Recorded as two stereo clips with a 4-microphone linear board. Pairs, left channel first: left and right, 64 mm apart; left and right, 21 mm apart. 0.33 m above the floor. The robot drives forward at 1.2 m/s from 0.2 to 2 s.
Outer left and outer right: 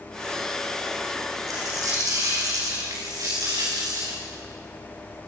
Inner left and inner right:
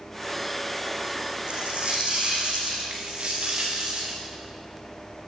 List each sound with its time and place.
1.5 s a dropped coin: 60° right (ahead or behind), 9 m
2.9 s a dropped coin: 65° right (ahead or behind), 6.5 m